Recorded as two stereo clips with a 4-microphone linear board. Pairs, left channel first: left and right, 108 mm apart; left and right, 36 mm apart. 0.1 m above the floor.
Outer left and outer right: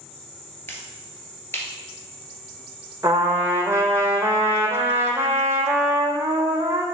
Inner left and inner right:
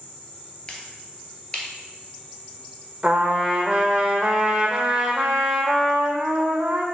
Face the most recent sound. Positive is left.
turn(degrees=-25)  # may be behind; listen again after turning